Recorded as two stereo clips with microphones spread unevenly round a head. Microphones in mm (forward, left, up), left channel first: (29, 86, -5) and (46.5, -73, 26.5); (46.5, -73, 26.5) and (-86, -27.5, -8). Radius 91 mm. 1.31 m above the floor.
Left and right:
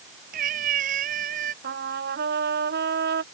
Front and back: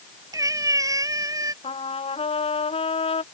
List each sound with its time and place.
0.3 s a cat meowing: 130° right
1.6 s a trumpet: 65° right